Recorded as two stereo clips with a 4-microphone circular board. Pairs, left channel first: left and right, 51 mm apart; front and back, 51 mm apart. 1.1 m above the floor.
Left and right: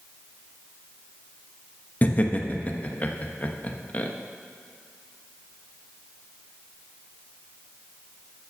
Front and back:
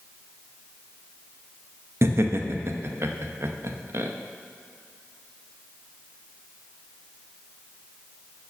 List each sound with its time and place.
2.0 s laughter: 145° left, 0.9 m